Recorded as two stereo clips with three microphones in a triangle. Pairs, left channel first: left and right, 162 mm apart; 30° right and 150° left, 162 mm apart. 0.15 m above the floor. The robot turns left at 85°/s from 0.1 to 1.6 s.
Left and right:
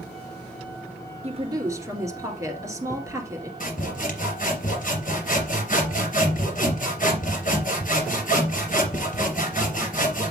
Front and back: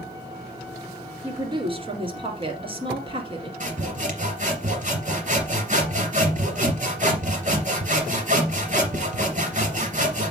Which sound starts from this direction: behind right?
A woman speaking, at 1.2 s.